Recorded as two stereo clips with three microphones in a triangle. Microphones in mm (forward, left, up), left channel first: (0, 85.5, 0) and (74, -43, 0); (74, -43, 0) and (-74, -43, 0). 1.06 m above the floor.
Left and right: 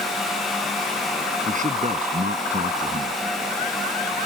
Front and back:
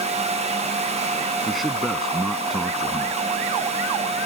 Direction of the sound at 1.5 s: 90° right.